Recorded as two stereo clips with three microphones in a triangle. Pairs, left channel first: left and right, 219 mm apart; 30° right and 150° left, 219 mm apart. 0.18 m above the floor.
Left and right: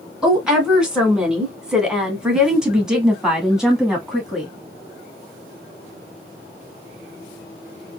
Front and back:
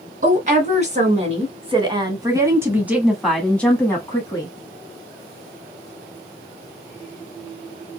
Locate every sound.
0.2 s a woman speaking: 175° right, 2 m; by 4.5 s 5° right, 1.5 m